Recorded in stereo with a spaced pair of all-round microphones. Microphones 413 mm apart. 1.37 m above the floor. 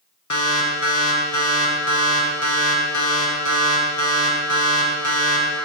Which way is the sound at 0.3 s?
45° left (ahead or behind).